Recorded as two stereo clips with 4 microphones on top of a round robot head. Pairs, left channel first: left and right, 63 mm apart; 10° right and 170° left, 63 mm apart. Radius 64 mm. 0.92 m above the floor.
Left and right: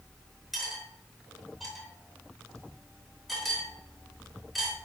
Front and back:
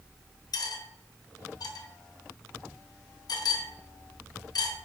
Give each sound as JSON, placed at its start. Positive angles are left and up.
{"t": 0.5, "sound": "cutlery clinking", "azimuth_deg": 0, "distance_m": 0.7}